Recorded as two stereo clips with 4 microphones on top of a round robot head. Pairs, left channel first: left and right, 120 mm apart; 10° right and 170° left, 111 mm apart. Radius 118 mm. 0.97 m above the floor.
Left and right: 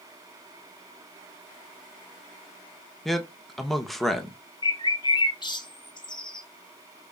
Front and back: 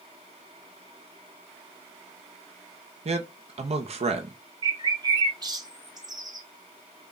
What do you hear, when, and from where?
3.0 s a man speaking: straight behind, 1.1 m
4.6 s a bird: 130° left, 1.1 m